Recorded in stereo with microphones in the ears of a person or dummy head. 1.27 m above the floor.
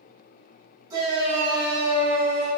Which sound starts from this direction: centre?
A shout, at 0.9 s.